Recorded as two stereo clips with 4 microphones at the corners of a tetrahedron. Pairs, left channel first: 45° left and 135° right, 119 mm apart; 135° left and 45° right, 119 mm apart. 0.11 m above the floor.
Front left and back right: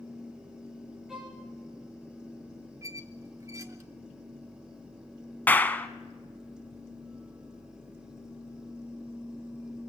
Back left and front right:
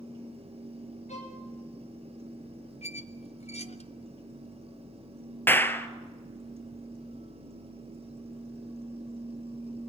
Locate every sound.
1.1 s a violin: 140° left, 5 m
2.8 s a squeak: 160° left, 1.1 m
5.5 s a clap: 95° left, 1.3 m